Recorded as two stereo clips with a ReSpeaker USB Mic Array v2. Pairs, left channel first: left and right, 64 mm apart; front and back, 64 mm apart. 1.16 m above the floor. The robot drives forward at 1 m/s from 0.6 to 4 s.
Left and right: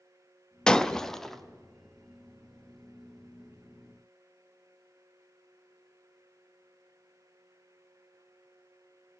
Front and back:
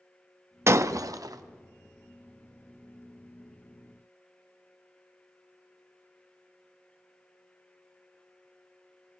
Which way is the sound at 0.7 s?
160° left.